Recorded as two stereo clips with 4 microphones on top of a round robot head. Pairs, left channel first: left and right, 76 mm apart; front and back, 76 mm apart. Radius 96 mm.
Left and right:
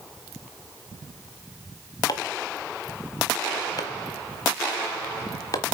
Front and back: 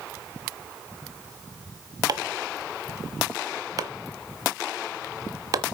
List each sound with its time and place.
2.1 s chopping: 140° left, 1.1 m